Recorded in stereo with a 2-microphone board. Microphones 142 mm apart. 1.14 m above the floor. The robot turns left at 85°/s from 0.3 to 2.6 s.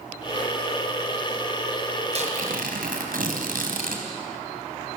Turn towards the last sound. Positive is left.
turn(degrees=-90)